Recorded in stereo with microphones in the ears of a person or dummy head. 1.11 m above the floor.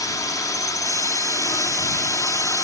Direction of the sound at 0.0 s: 15° left (ahead or behind).